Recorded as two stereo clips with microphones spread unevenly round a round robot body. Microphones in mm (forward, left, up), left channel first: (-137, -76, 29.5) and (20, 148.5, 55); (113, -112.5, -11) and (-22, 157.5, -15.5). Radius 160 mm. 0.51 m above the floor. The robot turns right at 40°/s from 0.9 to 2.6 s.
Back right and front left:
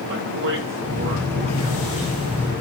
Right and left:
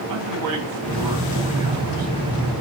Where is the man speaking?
100° left, 3 m; by 2.1 s 145° left, 3 m.